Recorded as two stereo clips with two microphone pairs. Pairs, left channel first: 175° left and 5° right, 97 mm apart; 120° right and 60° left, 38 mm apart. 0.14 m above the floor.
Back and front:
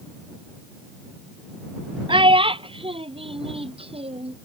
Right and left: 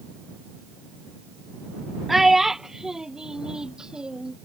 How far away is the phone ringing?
I don't hear a phone ringing.